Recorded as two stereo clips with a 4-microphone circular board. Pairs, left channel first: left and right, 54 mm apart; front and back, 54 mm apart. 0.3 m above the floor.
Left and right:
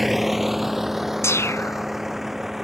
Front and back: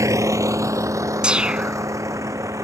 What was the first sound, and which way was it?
A vehicle, 175° right.